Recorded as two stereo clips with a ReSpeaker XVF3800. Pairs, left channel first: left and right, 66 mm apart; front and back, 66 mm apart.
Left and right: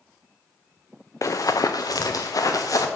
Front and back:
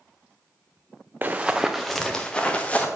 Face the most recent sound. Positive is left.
turn(degrees=65)